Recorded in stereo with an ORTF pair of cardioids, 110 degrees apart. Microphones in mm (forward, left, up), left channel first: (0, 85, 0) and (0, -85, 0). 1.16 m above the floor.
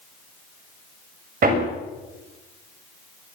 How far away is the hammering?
About 6 m.